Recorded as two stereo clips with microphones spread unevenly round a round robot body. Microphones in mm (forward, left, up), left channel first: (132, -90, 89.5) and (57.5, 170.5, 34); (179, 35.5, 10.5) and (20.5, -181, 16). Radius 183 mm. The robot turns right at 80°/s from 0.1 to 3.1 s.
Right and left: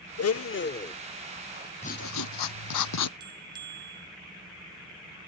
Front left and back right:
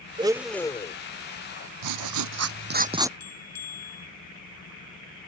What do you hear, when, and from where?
0.2 s a blender: 60° right; by 0.9 s straight ahead
1.8 s writing: 145° right; by 3.1 s 45° right
3.2 s a bell: 30° left